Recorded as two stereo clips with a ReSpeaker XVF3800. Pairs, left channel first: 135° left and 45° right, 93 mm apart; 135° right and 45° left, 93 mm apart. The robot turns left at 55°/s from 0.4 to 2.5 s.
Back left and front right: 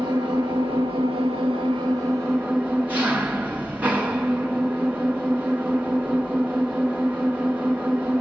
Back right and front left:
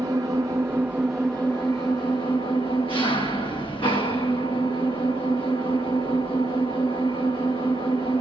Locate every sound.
0.0 s an engine running: 5° right, 3 m; by 8.2 s 120° right, 3 m